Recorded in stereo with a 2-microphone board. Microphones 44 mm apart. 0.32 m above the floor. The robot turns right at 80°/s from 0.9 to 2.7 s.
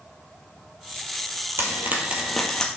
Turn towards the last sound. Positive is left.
turn(degrees=25)